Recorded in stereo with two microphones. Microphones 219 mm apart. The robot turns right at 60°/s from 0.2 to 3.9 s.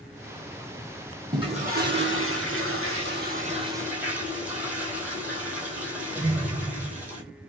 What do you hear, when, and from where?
1.3 s a toilet flushing: 160° right, 1.3 m; by 7.2 s 5° right, 1.3 m